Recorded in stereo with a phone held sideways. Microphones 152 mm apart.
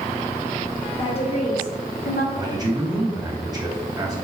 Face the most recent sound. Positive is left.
turn(degrees=-25)  # may be behind; listen again after turning